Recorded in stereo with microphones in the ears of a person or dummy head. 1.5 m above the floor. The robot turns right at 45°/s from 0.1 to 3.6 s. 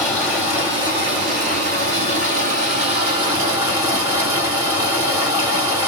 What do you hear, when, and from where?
0.0 s running water: 175° right, 1.9 m; by 5.9 s 20° right, 1.9 m